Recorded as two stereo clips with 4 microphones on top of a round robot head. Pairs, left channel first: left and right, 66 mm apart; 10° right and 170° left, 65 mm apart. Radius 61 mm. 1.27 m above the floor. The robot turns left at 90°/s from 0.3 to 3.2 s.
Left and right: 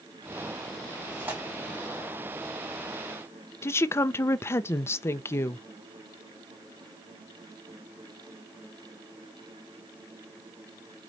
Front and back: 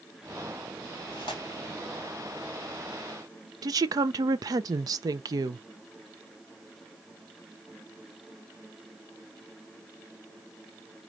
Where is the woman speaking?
140° left, 0.6 m.